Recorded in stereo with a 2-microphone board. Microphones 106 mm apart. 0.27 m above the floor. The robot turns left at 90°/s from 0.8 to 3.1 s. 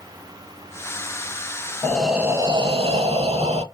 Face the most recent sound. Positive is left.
turn(degrees=-95)